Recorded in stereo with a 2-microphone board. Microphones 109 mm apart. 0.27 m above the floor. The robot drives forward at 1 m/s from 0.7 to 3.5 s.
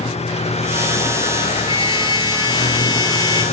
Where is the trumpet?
50° left (ahead or behind); by 3.4 s 35° left (ahead or behind).